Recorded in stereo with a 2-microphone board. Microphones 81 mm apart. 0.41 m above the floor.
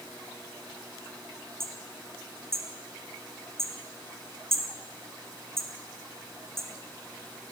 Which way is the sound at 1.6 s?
30° right (ahead or behind).